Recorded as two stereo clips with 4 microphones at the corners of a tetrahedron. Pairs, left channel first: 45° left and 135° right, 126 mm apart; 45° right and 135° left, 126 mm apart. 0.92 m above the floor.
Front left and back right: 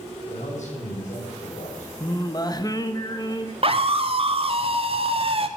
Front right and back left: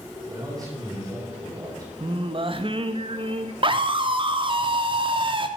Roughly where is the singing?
Left.